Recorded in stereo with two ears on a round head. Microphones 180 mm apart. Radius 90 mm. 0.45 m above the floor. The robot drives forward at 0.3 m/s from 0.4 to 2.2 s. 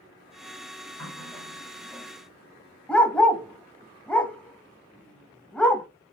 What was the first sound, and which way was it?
A running tap, 5° left (ahead or behind).